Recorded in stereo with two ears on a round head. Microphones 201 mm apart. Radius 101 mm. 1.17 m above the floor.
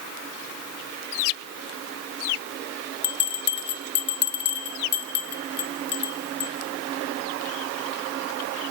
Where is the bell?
50° left (ahead or behind), 1.1 m.